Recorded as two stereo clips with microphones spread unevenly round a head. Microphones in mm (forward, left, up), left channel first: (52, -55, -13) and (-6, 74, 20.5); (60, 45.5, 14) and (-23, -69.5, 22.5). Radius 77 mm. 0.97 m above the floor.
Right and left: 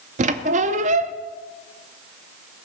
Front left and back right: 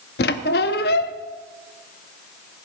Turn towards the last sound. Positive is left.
turn(degrees=85)